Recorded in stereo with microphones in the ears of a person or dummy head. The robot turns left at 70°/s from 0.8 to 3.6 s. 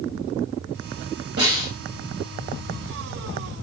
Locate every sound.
1.4 s a snare drum: 55° right (ahead or behind), 1.3 m; by 1.7 s 35° right (ahead or behind), 1.3 m